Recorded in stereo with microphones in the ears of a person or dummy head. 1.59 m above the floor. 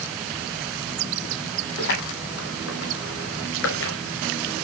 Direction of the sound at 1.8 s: 60° left (ahead or behind).